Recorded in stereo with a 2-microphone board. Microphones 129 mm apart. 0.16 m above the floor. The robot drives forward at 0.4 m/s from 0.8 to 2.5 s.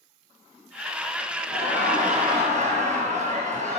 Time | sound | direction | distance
1.5 | laughter | 50° right (ahead or behind) | 3.5 m